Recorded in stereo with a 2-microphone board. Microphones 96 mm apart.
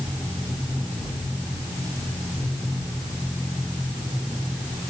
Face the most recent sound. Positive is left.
No sound to turn to.